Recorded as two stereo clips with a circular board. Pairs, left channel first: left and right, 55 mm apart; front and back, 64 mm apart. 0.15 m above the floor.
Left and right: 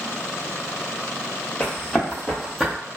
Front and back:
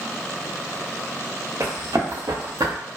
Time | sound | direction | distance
1.6 | running footsteps | 155° left | 1.6 m